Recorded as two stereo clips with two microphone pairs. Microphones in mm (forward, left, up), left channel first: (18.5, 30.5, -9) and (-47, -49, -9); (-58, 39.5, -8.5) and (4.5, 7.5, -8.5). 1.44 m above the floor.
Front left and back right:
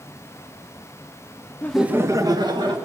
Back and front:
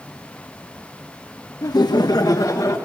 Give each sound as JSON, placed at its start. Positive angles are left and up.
{"t": 1.6, "sound": "laughter", "azimuth_deg": 125, "distance_m": 0.6}